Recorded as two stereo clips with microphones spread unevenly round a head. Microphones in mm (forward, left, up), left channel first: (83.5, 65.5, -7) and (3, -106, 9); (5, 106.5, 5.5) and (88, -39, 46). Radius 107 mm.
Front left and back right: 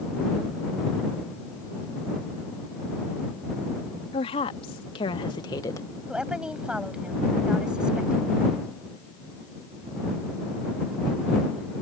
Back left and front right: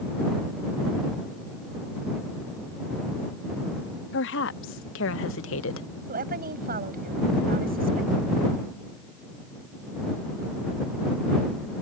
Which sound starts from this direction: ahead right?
A woman speaking, at 6.1 s.